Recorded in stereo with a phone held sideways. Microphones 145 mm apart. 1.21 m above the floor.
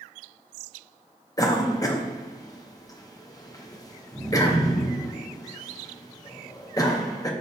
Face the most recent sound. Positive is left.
turn(degrees=25)  # may be behind; listen again after turning